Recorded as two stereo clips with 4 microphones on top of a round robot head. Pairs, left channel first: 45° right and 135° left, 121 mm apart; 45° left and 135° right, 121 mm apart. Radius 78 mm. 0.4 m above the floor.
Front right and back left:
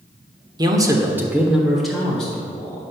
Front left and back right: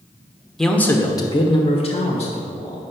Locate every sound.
0.6 s a man speaking: 130° left, 1.3 m; by 2.8 s 30° left, 2.5 m